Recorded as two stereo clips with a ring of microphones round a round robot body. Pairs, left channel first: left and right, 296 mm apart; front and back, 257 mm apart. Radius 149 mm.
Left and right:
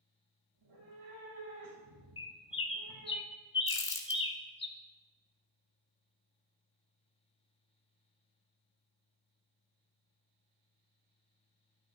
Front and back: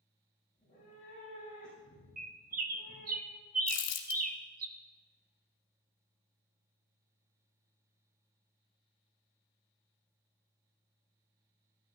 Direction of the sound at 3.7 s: 10° left.